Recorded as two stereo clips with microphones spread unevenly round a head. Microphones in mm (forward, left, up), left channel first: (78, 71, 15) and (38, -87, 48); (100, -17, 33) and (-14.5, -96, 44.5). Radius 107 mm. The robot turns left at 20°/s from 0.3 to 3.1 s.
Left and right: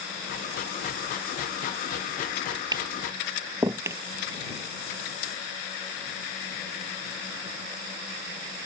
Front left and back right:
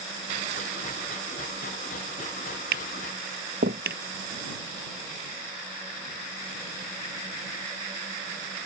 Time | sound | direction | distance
2.7 | tapping | 175° right | ?